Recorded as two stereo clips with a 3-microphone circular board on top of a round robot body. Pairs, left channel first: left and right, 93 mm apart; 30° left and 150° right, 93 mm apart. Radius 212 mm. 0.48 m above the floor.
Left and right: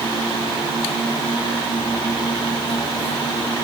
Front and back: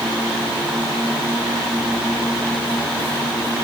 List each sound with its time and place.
Only background noise.